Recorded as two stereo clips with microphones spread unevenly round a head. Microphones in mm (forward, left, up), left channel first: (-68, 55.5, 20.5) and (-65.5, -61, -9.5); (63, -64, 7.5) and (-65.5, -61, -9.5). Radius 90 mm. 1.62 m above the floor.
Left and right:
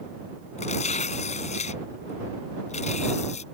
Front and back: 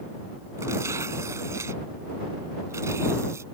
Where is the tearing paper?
100° left.